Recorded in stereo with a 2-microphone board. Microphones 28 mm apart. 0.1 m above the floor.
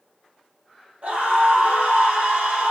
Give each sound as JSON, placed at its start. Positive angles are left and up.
{"t": 1.0, "sound": "a scream", "side_deg": -65, "distance_m": 4.5}